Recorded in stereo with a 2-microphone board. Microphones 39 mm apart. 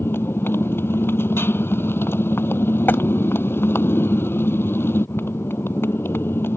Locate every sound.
0.0 s a motorcycle: 75° left (ahead or behind)
2.9 s tapping: 60° left (ahead or behind)